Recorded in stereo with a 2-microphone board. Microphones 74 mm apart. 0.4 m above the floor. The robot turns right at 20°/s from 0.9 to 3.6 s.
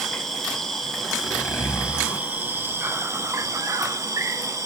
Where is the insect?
170° left, 0.8 m; by 4.7 s 135° right, 0.8 m.